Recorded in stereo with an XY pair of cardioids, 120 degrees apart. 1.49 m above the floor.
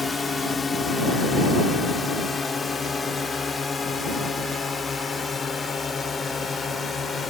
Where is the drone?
25° left; by 7.3 s 30° left.